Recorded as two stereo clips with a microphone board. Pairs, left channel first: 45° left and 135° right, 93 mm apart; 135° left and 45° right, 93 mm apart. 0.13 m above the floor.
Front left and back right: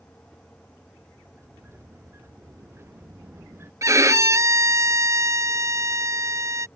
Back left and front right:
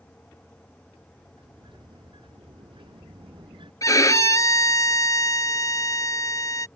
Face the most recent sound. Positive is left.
turn(degrees=180)